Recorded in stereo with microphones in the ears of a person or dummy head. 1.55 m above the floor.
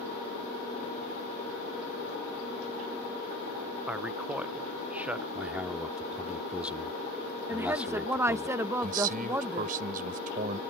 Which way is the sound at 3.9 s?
10° right (ahead or behind).